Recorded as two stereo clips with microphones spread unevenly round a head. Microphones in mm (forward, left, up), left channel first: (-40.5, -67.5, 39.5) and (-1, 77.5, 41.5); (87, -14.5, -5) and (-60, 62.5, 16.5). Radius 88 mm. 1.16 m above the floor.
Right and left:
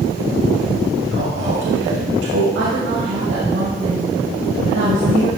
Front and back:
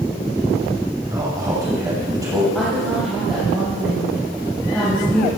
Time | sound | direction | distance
1.1 | a man speaking | 80° left | 5.5 m
2.5 | a woman speaking | 60° left | 6 m